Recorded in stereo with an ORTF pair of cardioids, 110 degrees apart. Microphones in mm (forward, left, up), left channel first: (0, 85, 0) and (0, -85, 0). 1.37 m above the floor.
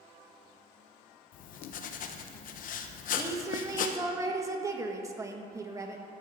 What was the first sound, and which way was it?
Writing, 60° left.